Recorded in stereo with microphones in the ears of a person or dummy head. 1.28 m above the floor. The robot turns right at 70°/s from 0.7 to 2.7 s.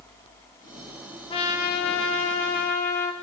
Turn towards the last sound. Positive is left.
turn(degrees=125)